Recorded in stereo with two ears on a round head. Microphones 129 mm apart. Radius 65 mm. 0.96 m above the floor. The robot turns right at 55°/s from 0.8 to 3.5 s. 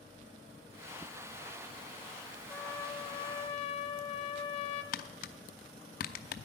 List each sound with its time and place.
2.5 s a trumpet: 15° left, 0.8 m; by 4.8 s 70° left, 0.8 m
4.9 s tapping: 65° left (ahead or behind), 0.7 m